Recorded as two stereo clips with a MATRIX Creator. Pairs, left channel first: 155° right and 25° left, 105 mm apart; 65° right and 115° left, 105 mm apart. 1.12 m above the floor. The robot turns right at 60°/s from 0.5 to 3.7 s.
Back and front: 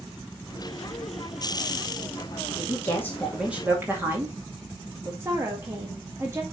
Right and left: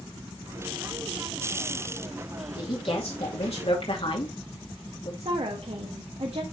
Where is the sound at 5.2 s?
85° left, 1.6 m.